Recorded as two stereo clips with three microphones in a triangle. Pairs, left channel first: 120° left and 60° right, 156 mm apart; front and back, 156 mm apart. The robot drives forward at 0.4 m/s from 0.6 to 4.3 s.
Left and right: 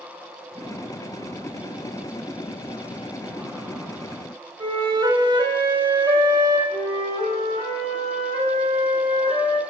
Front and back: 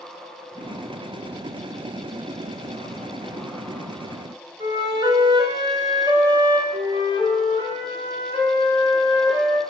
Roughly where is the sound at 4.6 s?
Behind right.